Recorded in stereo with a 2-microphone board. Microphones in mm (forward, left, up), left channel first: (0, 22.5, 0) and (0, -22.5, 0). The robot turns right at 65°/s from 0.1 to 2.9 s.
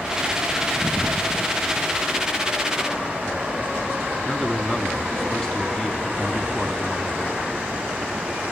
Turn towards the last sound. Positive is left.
turn(degrees=15)  # may be behind; listen again after turning